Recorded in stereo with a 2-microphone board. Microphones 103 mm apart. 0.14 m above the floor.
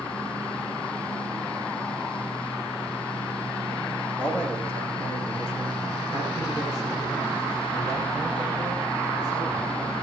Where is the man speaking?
15° right (ahead or behind), 8 m; by 9.9 s 50° right (ahead or behind), 11.5 m.